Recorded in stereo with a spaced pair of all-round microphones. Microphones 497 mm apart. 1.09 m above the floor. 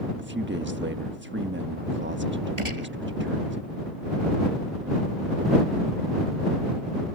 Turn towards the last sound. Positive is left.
turn(degrees=-75)  # may be behind; listen again after turning